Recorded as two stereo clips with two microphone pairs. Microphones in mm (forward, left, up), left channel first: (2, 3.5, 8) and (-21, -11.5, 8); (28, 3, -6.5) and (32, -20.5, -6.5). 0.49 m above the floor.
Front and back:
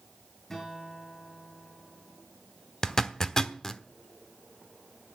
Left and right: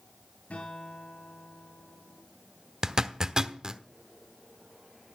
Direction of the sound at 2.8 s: 30° right.